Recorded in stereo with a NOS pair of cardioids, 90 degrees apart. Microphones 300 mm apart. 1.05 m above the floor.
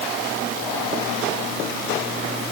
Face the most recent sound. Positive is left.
No sound to turn to.